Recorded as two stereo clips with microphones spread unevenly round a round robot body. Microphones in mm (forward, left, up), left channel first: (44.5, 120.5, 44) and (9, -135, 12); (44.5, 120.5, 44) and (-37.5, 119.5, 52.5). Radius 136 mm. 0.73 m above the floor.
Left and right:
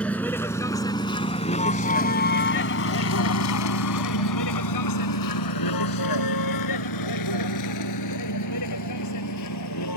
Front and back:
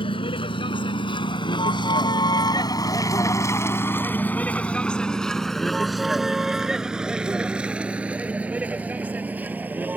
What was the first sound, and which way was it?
A vehicle, straight ahead.